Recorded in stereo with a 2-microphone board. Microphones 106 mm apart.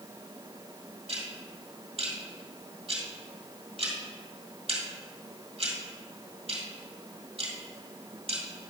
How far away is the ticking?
About 1.9 m.